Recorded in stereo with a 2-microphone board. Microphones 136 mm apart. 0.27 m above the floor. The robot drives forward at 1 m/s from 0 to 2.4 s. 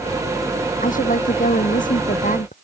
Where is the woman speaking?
85° left; by 2.5 s 80° left.